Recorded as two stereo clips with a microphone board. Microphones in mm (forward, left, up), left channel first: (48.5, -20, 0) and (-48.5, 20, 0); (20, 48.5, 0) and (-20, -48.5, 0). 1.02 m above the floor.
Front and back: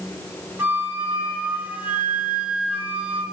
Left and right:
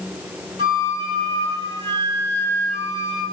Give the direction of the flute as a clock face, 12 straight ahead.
4 o'clock.